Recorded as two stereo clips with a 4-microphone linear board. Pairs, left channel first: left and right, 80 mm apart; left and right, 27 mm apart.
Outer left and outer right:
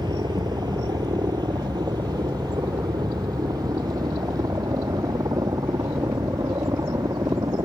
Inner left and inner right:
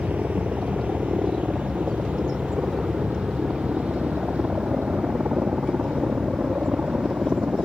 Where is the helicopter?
60° right (ahead or behind); by 7.7 s 45° right (ahead or behind).